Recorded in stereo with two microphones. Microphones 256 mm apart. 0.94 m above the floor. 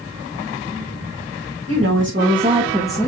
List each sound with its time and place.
1.7 s a woman speaking: 60° right (ahead or behind), 1.5 m; by 3.1 s 10° left (ahead or behind), 1.2 m